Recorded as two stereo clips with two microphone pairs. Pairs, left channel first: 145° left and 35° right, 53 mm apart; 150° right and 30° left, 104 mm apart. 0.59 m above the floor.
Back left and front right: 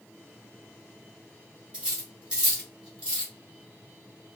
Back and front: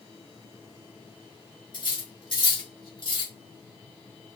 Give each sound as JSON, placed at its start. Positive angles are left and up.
{"t": 1.7, "sound": "cutlery clinking", "azimuth_deg": -105, "distance_m": 1.9}